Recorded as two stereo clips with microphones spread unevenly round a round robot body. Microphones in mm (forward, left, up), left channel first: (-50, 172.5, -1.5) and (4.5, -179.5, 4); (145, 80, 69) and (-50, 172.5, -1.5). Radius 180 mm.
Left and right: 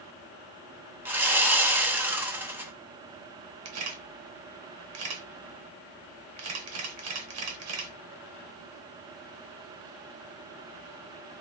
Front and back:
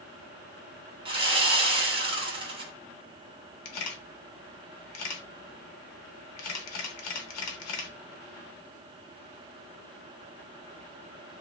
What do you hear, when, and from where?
1.1 s sawing: 165° right, 0.9 m
3.6 s a camera shutter: 35° right, 1.0 m